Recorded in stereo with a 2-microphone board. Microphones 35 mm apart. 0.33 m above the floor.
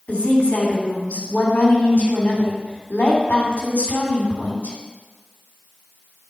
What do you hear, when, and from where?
0.1 s a woman speaking: 45° left (ahead or behind), 3 m